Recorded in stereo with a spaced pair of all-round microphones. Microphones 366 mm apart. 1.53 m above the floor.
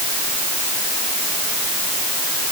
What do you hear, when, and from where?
Only background noise.